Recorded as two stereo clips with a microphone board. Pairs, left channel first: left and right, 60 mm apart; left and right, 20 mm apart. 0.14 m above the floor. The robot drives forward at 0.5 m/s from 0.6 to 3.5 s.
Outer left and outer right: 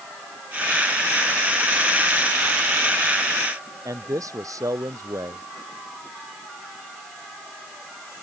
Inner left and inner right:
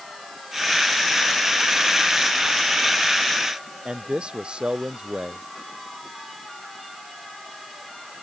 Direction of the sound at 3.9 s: 70° right (ahead or behind).